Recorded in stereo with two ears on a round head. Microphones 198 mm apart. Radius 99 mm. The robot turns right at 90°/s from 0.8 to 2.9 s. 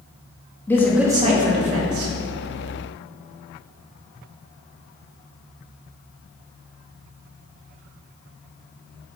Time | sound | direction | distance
0.7 | a man speaking | 170° left | 2.5 m